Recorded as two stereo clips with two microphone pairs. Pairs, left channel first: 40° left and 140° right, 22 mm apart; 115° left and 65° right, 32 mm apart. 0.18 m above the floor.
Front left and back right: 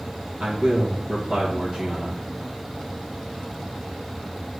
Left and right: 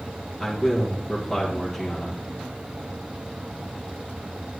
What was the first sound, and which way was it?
A man speaking, 155° right.